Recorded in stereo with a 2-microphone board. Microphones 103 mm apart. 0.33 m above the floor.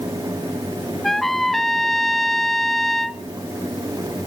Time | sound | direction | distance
1.0 | a trumpet | 5° left (ahead or behind) | 0.7 m